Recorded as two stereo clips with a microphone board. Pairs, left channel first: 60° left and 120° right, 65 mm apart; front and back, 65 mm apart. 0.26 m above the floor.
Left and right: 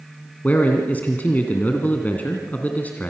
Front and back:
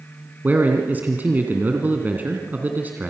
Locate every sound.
0.4 s a man speaking: 125° left, 2.5 m